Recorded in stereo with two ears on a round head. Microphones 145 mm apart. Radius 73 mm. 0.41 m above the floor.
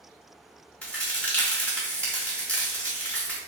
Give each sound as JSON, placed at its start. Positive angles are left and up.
{"t": 0.8, "sound": "a crack", "side_deg": 10, "distance_m": 1.2}